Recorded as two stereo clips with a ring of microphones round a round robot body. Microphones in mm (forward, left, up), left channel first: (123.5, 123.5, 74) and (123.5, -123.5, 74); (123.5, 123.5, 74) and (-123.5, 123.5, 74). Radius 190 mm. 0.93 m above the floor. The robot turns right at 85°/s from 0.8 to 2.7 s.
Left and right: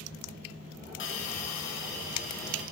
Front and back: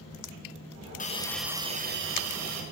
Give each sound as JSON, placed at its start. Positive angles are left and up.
{"t": 1.0, "sound": "a hiss", "azimuth_deg": 55, "distance_m": 1.5}